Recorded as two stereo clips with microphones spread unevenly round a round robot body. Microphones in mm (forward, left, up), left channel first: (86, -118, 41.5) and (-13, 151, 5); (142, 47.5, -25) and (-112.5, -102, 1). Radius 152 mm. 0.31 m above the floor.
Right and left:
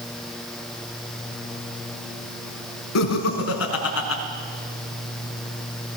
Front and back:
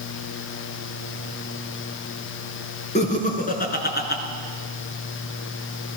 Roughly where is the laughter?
Ahead right.